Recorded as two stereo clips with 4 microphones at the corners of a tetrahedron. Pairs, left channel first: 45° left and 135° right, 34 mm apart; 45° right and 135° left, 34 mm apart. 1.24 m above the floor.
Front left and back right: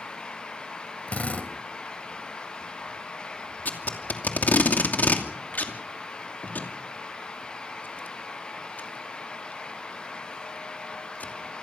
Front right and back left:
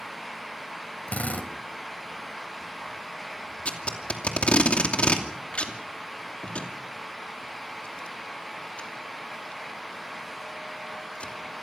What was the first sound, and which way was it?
A drill, straight ahead.